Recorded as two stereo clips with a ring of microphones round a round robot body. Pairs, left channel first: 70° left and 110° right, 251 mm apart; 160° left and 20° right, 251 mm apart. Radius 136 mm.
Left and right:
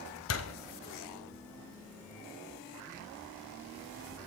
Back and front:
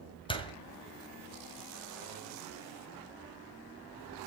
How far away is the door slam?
About 2 m.